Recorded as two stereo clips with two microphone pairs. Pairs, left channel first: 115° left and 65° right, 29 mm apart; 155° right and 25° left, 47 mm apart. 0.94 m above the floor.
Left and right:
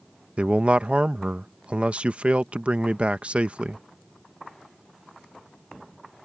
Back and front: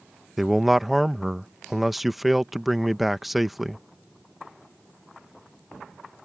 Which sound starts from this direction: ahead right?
A man speaking, at 0.4 s.